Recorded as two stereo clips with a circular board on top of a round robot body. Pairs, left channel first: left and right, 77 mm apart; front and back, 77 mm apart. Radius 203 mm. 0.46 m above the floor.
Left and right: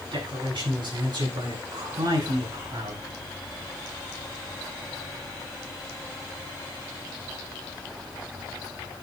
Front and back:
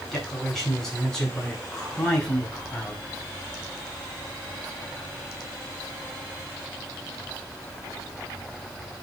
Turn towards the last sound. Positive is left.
turn(degrees=-75)